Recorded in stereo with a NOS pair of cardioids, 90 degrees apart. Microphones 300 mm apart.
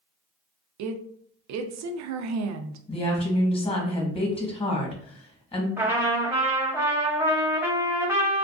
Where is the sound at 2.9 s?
20° left, 1.1 m.